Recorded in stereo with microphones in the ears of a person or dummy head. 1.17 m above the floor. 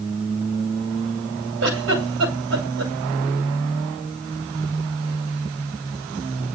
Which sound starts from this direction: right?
A giggle, at 1.6 s.